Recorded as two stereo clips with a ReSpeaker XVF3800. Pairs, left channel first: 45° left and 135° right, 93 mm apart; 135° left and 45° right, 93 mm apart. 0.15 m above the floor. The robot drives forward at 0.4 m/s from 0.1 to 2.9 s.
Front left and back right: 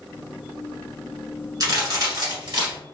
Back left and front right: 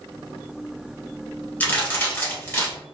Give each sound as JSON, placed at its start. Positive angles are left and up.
{"t": 1.6, "sound": "a crack", "azimuth_deg": -160, "distance_m": 1.2}